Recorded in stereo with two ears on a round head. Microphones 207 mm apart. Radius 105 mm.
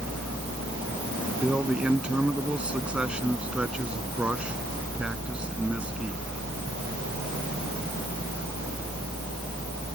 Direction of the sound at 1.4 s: 5° right (ahead or behind).